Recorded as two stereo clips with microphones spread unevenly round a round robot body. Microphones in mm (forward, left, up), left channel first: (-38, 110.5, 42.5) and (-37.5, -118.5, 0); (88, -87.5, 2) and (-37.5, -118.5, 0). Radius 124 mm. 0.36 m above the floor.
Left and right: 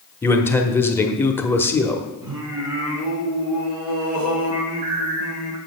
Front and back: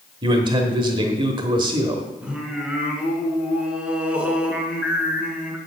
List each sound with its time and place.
0.2 s a man speaking: straight behind, 1.0 m
2.2 s singing: 85° right, 2.5 m